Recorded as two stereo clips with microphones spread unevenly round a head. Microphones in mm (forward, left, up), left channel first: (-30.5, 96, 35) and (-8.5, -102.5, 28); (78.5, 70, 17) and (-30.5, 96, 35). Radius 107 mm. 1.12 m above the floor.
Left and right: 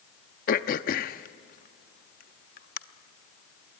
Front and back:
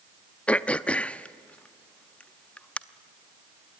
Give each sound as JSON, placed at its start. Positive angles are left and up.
{"t": 0.5, "sound": "throat clearing", "azimuth_deg": 70, "distance_m": 0.6}